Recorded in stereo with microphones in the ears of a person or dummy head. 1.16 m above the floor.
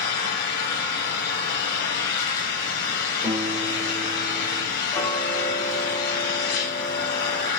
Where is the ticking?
15° left (ahead or behind), 1.4 m.